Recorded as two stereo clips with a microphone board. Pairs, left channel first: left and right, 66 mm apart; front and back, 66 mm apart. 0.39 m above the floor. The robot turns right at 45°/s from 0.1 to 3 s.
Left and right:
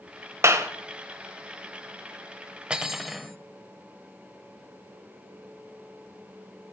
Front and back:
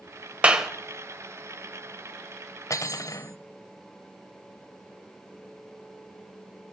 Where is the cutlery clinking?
15° right, 0.9 m; by 3.4 s 5° right, 0.9 m.